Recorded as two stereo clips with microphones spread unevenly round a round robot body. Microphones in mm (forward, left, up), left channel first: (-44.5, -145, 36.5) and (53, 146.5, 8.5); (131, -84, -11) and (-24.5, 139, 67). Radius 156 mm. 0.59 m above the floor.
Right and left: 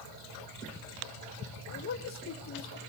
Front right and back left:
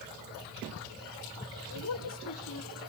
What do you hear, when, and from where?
1.7 s a man speaking: 60° right, 2 m